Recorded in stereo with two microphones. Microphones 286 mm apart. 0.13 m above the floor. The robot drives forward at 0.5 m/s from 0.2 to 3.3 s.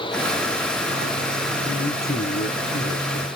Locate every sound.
1.6 s a man speaking: 30° left (ahead or behind), 1.4 m; by 3.3 s 35° left (ahead or behind), 1.3 m